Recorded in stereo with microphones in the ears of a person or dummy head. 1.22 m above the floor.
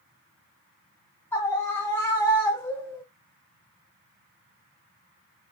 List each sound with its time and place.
1.3 s a scream: 15° left (ahead or behind), 1.0 m